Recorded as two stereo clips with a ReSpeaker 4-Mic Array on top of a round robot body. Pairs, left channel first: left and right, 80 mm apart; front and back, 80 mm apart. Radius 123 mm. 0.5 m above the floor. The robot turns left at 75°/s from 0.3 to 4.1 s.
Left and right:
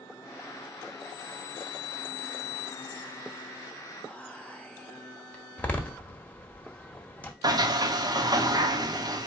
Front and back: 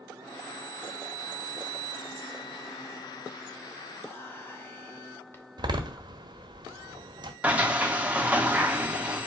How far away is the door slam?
About 1.0 m.